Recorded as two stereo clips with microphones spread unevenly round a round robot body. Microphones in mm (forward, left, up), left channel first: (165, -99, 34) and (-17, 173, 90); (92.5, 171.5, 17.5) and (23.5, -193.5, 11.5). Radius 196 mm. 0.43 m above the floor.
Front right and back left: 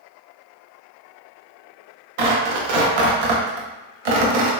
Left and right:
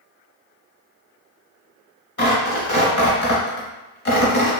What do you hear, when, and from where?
2.2 s tearing paper: 145° left, 0.6 m